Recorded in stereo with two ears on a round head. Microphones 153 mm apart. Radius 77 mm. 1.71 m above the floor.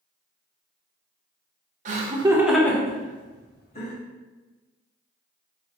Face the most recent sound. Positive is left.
turn(degrees=45)  # may be behind; listen again after turning